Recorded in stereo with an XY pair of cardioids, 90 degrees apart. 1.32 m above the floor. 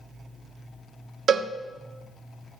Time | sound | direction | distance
1.3 | a cowbell | 70° right | 0.8 m